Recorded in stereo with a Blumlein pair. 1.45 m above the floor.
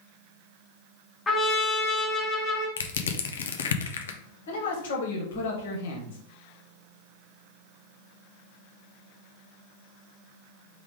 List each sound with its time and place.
1.3 s a trumpet: 15° left, 2.0 m
2.8 s crushing: 65° left, 0.6 m
4.5 s a man speaking: 60° left, 1.6 m